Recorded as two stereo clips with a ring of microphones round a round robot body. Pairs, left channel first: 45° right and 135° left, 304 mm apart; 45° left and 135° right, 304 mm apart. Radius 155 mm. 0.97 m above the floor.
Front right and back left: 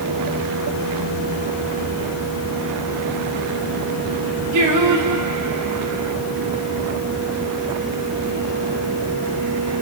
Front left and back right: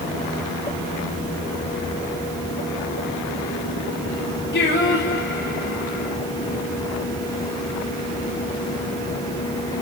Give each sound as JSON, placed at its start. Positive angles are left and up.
{"t": 4.5, "sound": "singing", "azimuth_deg": 105, "distance_m": 3.5}